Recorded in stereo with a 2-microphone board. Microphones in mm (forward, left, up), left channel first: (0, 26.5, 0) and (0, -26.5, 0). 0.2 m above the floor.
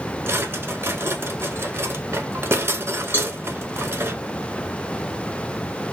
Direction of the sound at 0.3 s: 50° right (ahead or behind).